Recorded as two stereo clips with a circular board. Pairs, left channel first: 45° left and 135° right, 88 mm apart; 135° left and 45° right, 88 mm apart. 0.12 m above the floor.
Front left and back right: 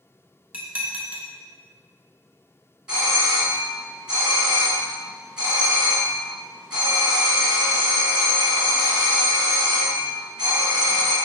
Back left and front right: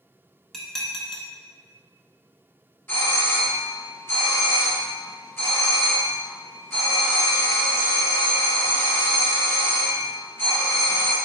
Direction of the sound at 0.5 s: 145° right.